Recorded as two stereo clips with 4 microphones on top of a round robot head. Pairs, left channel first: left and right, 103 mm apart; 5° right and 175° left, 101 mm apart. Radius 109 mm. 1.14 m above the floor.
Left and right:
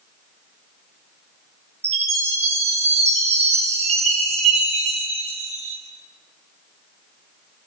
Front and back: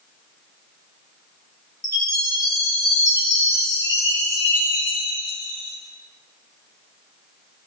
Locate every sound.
1.8 s a chime: 65° right, 6.5 m